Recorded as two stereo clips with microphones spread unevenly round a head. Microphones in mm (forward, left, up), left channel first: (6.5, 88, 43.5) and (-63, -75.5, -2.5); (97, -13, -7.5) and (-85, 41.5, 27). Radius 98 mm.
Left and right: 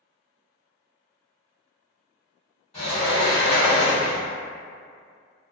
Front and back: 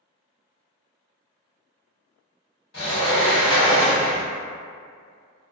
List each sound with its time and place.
2.7 s a sliding door: 10° left, 1.8 m